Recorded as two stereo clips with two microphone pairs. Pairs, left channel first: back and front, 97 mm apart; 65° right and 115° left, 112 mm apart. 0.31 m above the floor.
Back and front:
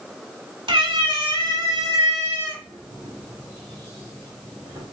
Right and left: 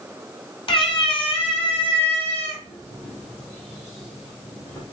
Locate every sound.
0.7 s a cat meowing: 30° right, 1.0 m; by 4.8 s 50° right, 4 m